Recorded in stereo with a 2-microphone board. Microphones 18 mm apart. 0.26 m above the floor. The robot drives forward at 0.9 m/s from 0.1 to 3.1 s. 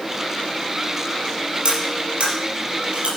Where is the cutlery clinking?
70° right (ahead or behind), 4 m; by 3.1 s 80° right, 4 m.